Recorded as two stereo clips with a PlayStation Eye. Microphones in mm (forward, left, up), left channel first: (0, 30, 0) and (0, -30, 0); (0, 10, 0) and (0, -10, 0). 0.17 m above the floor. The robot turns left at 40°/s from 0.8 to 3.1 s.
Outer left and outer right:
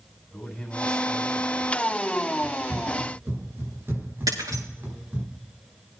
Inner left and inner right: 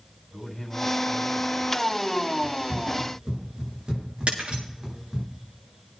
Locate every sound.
0.3 s a man speaking: 10° left, 7.5 m; by 2.0 s 35° right, 7.5 m
2.4 s running footsteps: 75° right (ahead or behind), 6 m; by 5.3 s 30° right (ahead or behind), 5 m
4.3 s breaking glass: 90° right, 6.5 m